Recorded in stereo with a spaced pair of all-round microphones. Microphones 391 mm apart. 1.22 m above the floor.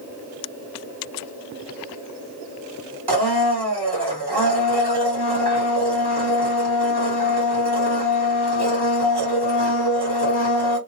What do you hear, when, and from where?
3.1 s a blender: 80° right, 1.5 m